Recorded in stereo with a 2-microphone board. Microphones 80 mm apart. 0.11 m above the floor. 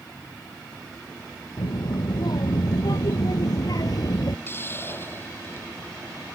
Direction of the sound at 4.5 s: 30° left (ahead or behind).